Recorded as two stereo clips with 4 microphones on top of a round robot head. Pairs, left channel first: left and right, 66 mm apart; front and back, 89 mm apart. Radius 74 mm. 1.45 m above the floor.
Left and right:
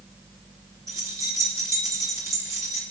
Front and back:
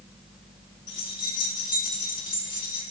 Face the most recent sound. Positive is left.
turn(degrees=-50)